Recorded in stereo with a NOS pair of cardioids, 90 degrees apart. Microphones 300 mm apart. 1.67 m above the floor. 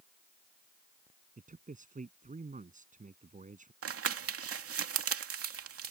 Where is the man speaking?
25° right.